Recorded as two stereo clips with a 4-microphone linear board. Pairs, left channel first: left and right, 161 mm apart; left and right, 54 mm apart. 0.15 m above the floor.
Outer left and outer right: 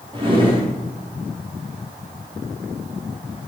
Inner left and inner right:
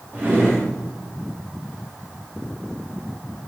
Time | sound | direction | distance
0.1 | a drawer | 35° right (ahead or behind) | 9 m